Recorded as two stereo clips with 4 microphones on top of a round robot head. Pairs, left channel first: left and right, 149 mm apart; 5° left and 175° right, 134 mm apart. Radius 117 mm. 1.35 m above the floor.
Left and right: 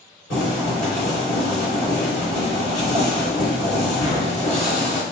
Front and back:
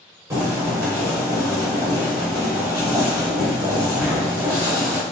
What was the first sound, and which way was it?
Boiling, 120° left.